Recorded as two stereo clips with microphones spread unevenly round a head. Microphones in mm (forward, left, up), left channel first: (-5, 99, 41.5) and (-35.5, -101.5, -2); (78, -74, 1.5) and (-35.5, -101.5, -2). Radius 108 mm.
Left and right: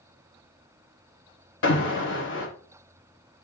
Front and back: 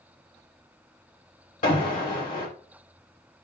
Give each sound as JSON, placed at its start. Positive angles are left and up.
{"t": 1.6, "sound": "an alarm", "azimuth_deg": 40, "distance_m": 3.0}